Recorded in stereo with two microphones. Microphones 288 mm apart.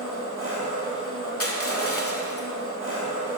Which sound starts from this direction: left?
Crushing, at 1.4 s.